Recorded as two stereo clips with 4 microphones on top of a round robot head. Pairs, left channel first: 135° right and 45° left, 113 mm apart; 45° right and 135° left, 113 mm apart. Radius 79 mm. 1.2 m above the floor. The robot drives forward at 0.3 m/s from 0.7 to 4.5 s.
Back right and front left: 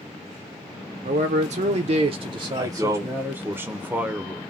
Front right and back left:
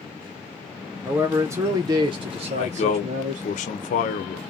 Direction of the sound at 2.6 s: 20° right.